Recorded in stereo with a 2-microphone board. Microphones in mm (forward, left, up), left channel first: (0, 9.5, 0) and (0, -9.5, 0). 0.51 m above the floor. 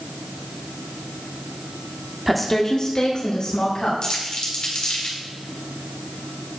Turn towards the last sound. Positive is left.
turn(degrees=50)  # may be behind; listen again after turning